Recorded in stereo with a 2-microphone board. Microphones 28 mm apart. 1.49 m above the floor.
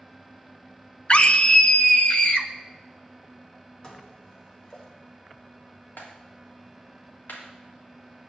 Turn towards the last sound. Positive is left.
turn(degrees=85)